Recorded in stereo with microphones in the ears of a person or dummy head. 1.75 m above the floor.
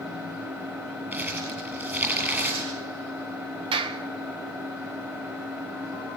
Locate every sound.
0.0 s an engine running: 10° right (ahead or behind), 5 m
1.1 s crumpling: 10° right (ahead or behind), 8 m
3.7 s a clap: 30° right (ahead or behind), 1.6 m